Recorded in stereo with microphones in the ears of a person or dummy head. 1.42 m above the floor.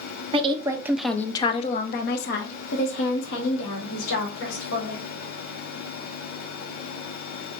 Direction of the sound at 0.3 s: 30° right (ahead or behind).